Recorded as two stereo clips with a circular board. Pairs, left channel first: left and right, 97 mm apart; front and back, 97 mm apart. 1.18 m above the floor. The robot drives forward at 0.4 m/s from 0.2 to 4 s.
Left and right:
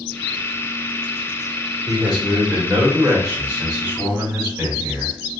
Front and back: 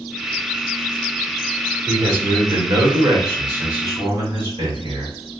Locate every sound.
1.9 s a man speaking: 160° right, 1.4 m; by 5.2 s 170° right, 2 m